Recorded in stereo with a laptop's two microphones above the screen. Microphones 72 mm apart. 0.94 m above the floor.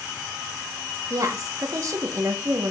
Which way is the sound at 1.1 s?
50° right (ahead or behind).